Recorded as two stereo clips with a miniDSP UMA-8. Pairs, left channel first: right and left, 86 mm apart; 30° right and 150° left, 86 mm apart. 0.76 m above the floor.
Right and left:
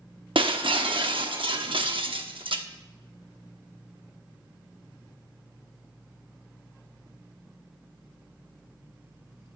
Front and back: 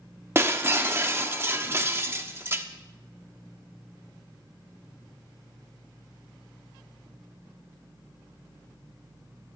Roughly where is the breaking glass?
Left.